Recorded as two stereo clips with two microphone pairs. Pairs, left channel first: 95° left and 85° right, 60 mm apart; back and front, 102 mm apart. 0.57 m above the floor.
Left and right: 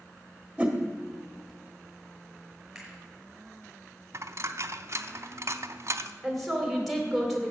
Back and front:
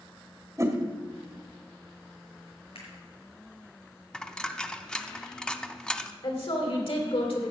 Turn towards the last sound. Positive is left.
turn(degrees=-175)